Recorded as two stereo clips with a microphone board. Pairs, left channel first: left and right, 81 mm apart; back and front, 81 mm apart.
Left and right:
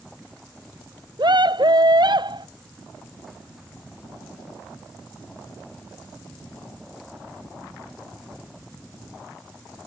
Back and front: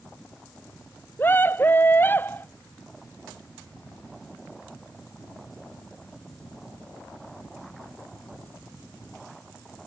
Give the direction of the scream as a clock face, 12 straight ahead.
4 o'clock.